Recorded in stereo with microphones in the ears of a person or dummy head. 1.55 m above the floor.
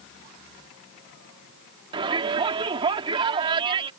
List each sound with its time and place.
1.9 s a shout: 30° right (ahead or behind)